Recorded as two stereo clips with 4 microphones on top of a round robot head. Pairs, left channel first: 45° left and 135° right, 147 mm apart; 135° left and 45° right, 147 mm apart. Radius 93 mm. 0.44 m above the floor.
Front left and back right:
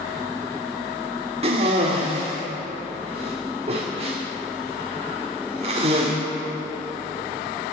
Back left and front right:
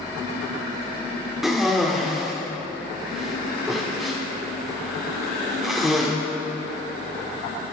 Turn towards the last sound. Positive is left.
turn(degrees=-130)